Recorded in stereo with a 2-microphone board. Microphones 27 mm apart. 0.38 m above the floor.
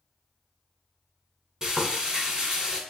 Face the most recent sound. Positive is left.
turn(degrees=-25)  # may be behind; listen again after turning